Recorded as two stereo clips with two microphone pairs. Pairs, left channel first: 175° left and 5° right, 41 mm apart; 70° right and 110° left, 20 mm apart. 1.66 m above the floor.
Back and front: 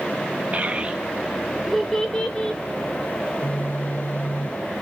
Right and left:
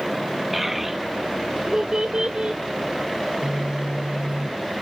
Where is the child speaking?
30° left, 1.2 m; by 2.6 s 100° left, 1.6 m.